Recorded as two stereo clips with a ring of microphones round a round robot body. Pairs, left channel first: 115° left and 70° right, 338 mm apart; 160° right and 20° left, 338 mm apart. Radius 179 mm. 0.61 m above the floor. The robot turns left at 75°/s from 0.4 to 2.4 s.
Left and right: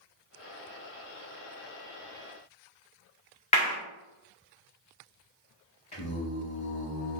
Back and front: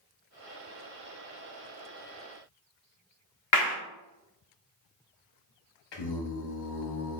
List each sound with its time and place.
3.5 s a clap: straight behind, 1.3 m
5.9 s singing: 175° right, 0.9 m